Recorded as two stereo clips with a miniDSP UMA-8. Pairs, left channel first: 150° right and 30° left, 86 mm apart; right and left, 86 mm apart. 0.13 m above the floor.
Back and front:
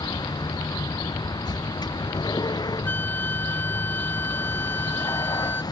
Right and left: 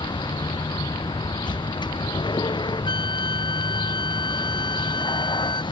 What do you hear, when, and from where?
0.0 s a vehicle: 115° right
2.9 s a flute: 85° right